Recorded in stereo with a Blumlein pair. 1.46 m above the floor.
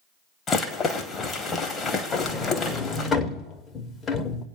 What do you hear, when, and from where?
0.5 s a rattle: 20° left, 1.2 m
2.1 s a sliding door: 20° left, 1.0 m